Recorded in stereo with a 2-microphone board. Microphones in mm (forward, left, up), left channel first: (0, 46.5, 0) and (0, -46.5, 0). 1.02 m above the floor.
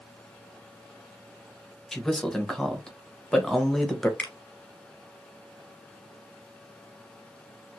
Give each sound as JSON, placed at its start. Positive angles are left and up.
{"t": 1.9, "sound": "a man speaking", "side_deg": 5, "distance_m": 0.8}
{"t": 4.2, "sound": "a finger snap", "side_deg": 20, "distance_m": 1.1}